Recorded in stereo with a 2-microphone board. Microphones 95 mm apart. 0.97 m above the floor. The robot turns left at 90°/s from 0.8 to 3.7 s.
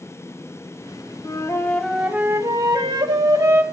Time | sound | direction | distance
1.2 | a flute | 60° left | 0.7 m